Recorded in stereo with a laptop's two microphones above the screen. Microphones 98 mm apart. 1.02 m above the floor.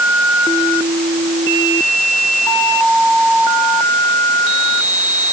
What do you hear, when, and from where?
Only background noise.